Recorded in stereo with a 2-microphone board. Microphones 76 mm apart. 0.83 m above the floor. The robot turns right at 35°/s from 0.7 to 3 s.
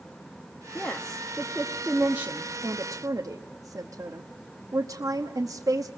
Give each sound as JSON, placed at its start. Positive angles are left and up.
{"t": 0.8, "sound": "a woman speaking", "side_deg": 20, "distance_m": 0.9}